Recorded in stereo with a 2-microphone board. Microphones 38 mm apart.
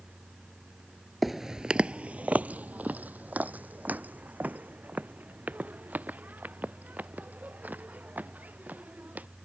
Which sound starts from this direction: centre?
Footsteps, at 1.2 s.